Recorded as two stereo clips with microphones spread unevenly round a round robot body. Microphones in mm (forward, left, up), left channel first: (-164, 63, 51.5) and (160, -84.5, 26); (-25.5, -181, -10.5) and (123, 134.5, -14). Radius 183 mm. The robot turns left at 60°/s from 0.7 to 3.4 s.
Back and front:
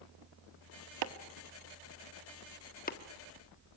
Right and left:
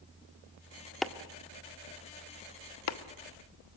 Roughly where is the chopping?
Ahead right.